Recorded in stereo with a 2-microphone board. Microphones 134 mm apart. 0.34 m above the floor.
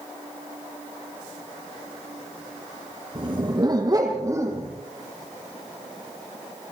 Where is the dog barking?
40° right (ahead or behind), 5 m; by 4.7 s 20° right (ahead or behind), 6.5 m.